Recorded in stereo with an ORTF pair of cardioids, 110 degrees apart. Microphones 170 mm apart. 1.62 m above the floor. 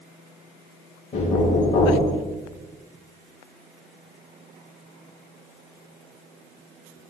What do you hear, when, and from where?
1.1 s knocking: 40° left, 0.9 m